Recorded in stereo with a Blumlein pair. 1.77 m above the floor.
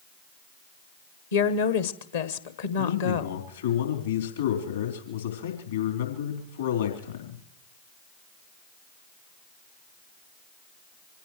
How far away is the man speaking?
About 3.5 m.